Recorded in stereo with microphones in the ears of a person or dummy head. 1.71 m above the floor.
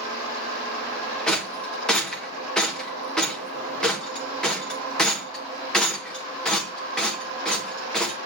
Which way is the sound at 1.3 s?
5° left (ahead or behind).